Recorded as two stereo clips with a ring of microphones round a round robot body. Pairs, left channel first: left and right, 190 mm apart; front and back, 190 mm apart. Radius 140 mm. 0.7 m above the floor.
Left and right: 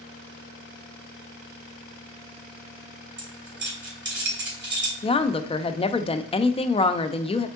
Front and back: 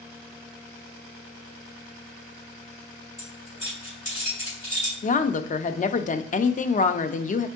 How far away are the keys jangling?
About 2.5 m.